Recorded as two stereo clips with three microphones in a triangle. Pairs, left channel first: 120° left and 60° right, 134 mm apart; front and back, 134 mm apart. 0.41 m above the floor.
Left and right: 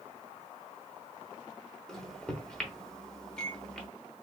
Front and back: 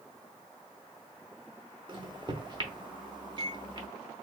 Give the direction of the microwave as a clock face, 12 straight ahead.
5 o'clock.